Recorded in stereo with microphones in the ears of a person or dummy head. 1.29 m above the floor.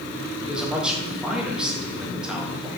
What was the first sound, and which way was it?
A man speaking, 5° right (ahead or behind).